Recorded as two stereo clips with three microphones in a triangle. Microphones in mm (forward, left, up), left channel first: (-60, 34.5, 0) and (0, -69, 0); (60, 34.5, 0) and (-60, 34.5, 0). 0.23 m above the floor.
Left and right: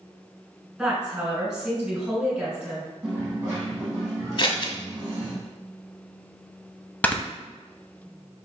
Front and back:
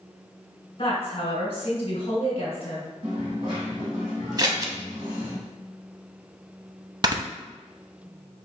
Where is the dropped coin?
125° right, 2 m.